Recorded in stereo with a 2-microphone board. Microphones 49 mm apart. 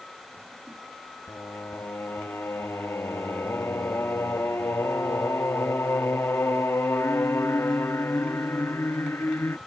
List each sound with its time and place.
1.3 s singing: 65° left (ahead or behind)